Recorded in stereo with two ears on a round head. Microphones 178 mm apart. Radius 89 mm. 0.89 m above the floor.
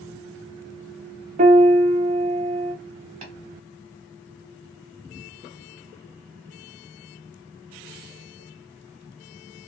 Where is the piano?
35° right (ahead or behind), 0.6 m.